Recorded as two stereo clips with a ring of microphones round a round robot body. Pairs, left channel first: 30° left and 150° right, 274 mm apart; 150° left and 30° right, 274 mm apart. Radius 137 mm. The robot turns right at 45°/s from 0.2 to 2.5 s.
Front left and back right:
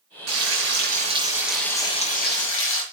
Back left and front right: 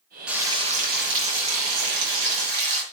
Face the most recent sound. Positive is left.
turn(degrees=-15)